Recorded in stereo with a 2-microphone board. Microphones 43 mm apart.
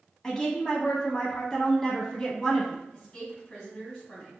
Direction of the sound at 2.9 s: 20° left (ahead or behind).